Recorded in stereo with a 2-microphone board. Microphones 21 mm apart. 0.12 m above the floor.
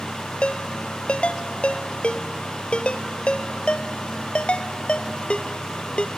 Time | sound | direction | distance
0.4 | a ringtone | 65° left (ahead or behind) | 1.2 m